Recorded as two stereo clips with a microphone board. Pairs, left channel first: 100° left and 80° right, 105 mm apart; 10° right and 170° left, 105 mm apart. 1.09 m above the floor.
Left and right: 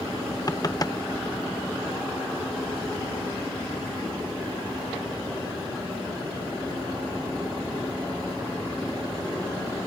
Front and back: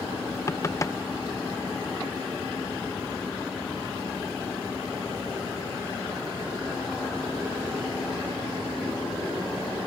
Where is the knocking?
45° left.